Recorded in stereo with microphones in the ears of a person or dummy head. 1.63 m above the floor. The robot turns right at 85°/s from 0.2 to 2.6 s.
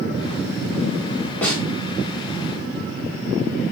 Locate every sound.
1.4 s a snare drum: 10° left (ahead or behind), 1.2 m; by 1.6 s 5° right (ahead or behind), 1.2 m